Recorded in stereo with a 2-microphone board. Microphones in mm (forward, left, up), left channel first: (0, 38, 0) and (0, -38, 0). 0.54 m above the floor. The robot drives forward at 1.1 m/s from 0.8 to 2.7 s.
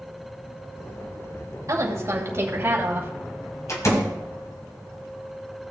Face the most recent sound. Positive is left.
turn(degrees=45)  # may be behind; listen again after turning